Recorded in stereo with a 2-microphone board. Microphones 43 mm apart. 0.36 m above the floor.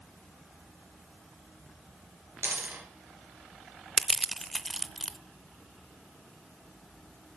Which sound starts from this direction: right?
A dropped coin, at 2.4 s.